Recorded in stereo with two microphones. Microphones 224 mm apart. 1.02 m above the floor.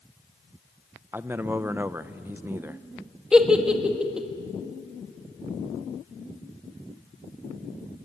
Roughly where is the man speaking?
Centre.